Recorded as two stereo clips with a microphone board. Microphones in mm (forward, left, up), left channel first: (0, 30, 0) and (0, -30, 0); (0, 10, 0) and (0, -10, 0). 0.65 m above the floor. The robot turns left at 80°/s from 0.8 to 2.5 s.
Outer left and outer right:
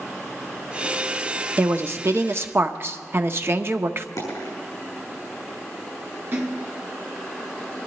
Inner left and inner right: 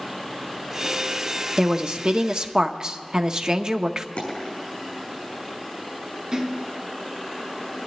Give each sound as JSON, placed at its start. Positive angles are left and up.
{"t": 1.6, "sound": "a woman speaking", "azimuth_deg": -45, "distance_m": 0.8}
{"t": 4.2, "sound": "a dropped coin", "side_deg": 70, "distance_m": 6.5}
{"t": 6.3, "sound": "a splash", "side_deg": -40, "distance_m": 3.5}